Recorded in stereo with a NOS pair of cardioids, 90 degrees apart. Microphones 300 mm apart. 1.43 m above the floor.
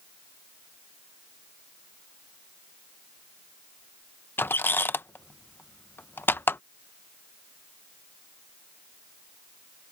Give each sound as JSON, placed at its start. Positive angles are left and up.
{"t": 4.4, "sound": "a squeak", "azimuth_deg": 5}